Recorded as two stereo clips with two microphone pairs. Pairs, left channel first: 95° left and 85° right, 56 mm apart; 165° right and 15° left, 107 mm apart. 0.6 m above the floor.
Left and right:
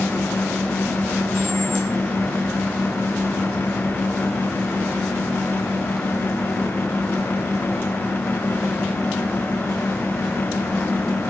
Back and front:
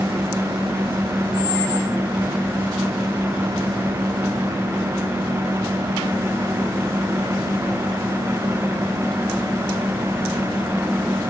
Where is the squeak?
125° left, 3.5 m.